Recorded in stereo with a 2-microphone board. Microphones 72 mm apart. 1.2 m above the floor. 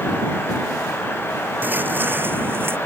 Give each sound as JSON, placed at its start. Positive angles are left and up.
{"t": 1.6, "sound": "footsteps", "side_deg": -25}